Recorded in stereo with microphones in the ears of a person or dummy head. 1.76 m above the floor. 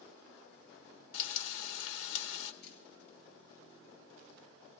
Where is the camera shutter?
60° left (ahead or behind), 4 m.